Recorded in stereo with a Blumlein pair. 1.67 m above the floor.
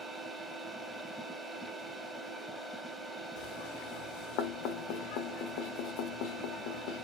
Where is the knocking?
45° left, 0.7 m.